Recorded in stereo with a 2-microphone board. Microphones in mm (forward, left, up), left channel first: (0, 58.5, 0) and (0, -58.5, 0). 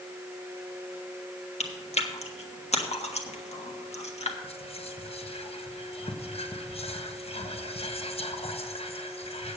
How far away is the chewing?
About 1.3 m.